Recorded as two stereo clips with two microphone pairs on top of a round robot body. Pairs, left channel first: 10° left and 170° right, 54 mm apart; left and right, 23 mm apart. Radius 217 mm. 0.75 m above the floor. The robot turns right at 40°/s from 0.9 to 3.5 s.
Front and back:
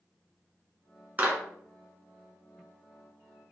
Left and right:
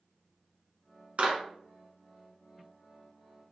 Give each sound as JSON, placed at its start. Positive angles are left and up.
{"t": 1.2, "sound": "a clap", "azimuth_deg": -120, "distance_m": 1.4}